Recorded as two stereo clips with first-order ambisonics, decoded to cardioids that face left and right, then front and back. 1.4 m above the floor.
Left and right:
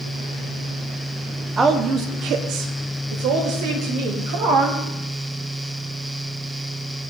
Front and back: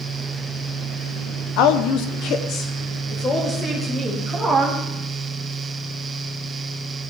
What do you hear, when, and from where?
1.6 s a woman speaking: 20° right, 0.8 m; by 4.8 s 85° right, 2 m